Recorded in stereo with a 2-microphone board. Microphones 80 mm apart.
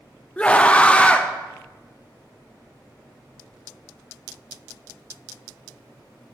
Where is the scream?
15° left (ahead or behind), 0.8 m.